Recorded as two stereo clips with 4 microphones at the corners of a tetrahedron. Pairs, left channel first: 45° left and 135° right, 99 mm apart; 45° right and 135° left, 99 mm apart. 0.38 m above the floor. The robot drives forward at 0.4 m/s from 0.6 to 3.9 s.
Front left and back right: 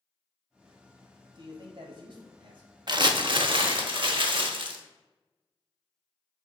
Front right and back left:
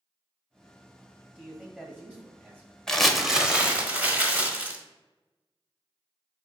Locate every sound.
1.4 s a man speaking: 150° right, 1.4 m; by 2.7 s 160° right, 1.8 m
2.9 s crumpling: 125° right, 0.5 m; by 4.8 s 155° right, 0.8 m